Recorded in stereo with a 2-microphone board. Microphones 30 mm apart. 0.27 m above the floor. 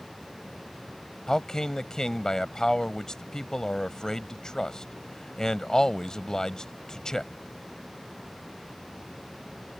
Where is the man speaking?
20° left (ahead or behind).